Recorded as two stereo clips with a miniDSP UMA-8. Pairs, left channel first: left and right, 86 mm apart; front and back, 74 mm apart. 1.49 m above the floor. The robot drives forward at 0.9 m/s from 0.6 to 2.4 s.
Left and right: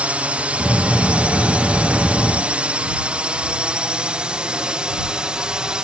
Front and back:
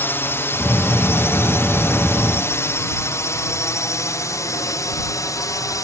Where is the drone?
30° right; by 5.8 s 15° right.